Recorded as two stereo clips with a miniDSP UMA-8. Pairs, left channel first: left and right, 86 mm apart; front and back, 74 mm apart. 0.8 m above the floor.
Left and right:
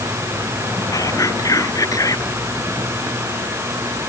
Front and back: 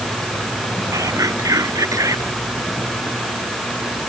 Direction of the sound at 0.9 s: 140° left.